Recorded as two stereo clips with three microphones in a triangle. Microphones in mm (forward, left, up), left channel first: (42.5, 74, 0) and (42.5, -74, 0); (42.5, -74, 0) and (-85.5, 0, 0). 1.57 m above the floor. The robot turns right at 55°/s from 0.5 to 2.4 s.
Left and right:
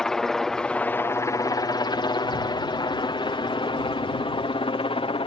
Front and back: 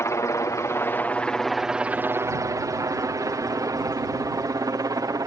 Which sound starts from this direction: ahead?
A helicopter, at 0.0 s.